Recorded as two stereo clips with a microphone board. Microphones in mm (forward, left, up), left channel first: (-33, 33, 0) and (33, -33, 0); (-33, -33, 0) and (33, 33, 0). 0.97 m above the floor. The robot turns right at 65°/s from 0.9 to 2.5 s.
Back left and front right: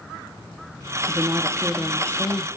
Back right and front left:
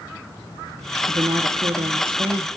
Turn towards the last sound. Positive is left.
turn(degrees=95)